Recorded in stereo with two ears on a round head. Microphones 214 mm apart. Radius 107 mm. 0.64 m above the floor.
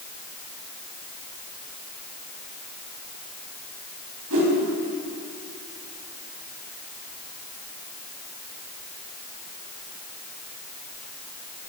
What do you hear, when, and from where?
4.3 s a whoosh: 80° right, 5 m